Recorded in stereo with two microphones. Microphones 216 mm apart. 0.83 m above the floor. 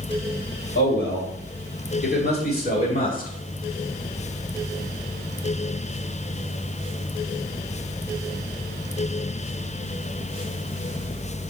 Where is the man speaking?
55° left (ahead or behind), 3.5 m; by 3.3 s 35° left (ahead or behind), 2.5 m.